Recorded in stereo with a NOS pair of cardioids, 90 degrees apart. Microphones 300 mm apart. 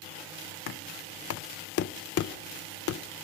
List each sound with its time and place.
0.7 s knocking: 50° left, 0.6 m